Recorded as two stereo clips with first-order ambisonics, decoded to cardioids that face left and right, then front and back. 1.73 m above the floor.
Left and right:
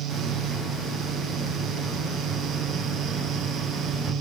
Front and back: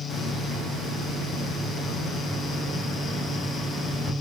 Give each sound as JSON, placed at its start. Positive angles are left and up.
{"t": 0.1, "sound": "a hiss", "azimuth_deg": -45, "distance_m": 1.6}